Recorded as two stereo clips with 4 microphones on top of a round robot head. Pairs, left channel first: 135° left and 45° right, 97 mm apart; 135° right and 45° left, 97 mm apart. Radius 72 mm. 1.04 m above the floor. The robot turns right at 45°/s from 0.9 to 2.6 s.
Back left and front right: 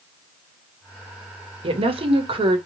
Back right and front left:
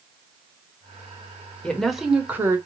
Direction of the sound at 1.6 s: 55° right.